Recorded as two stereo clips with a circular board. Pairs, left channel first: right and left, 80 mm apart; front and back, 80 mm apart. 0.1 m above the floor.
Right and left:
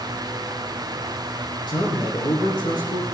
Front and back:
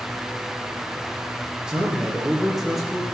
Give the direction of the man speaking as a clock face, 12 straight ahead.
3 o'clock.